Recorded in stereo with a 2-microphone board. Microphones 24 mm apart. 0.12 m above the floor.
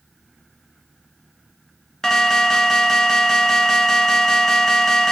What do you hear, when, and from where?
2.0 s an alarm: 20° left (ahead or behind), 0.8 m